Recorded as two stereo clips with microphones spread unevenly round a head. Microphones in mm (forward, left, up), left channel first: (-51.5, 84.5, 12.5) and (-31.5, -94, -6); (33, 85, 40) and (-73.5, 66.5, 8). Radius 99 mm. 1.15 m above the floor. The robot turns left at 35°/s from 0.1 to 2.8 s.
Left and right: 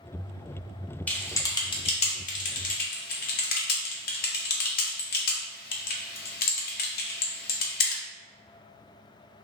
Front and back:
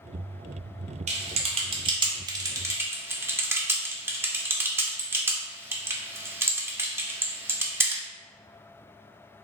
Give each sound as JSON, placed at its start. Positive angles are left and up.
{"t": 1.1, "sound": "typing on a keyboard", "azimuth_deg": 175, "distance_m": 0.6}